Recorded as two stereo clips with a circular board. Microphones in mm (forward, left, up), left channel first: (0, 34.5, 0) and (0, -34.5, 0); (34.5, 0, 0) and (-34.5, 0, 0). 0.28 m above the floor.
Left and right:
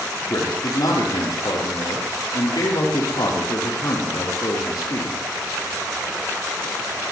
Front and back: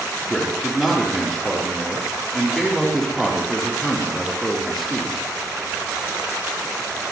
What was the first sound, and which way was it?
A man speaking, 90° left.